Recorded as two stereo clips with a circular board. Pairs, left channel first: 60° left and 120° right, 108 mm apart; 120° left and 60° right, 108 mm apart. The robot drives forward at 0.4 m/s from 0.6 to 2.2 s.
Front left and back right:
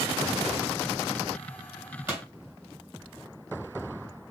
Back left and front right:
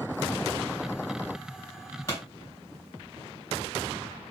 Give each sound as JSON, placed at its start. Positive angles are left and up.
{"t": 2.1, "sound": "a pop", "azimuth_deg": 175, "distance_m": 2.5}